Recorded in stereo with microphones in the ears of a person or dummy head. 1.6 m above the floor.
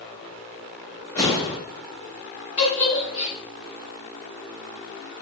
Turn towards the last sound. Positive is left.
turn(degrees=50)  # may be behind; listen again after turning